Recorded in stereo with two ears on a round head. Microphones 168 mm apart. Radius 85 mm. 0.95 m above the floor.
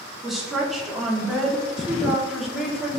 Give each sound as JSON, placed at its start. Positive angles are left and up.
{"t": 0.2, "sound": "a woman speaking", "side_deg": 0, "distance_m": 1.9}